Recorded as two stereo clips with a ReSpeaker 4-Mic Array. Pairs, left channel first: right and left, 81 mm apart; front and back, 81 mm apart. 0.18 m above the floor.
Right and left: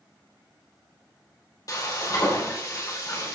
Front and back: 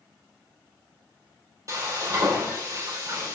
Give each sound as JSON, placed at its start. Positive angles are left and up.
{"t": 1.7, "sound": "frying", "azimuth_deg": -135, "distance_m": 4.0}